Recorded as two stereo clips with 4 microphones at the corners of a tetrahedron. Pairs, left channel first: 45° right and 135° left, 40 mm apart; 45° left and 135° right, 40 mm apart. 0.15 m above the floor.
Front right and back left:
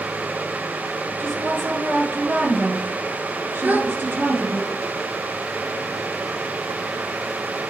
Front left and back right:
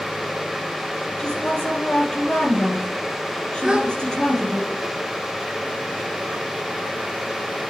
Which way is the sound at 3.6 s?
160° left.